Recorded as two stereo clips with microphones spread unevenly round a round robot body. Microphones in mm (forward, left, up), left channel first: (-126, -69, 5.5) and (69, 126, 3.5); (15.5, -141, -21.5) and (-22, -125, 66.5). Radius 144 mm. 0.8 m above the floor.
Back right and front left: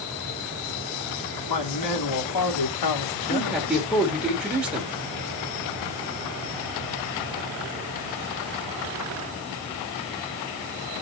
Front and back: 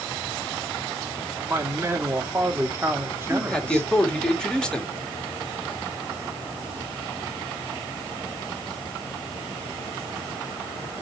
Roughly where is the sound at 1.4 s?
Behind right.